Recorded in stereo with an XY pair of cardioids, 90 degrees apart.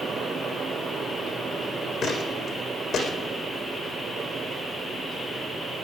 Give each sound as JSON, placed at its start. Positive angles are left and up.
{"t": 0.0, "sound": "a fan", "azimuth_deg": -60, "distance_m": 3.0}
{"t": 2.0, "sound": "footsteps", "azimuth_deg": 65, "distance_m": 4.5}